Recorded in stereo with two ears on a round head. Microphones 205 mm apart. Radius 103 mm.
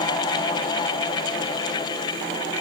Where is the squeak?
No squeak in this recording.